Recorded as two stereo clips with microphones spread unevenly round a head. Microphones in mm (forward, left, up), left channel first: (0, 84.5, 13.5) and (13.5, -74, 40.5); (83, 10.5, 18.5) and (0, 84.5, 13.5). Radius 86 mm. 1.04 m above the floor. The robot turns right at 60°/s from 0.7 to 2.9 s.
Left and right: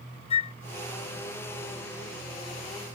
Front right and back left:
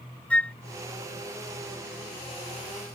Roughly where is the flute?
Ahead left.